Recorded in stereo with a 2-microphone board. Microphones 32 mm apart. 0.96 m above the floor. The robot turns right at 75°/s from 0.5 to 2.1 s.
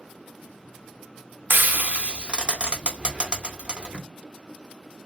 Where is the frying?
75° right (ahead or behind), 0.7 m; by 4.0 s 30° right (ahead or behind), 0.7 m.